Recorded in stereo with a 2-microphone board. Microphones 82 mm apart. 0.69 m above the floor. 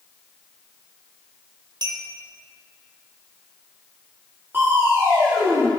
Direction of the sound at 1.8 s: 65° right (ahead or behind).